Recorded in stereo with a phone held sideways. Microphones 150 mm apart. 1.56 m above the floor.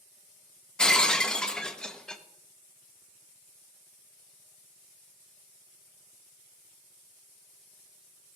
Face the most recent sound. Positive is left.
turn(degrees=5)  # may be behind; listen again after turning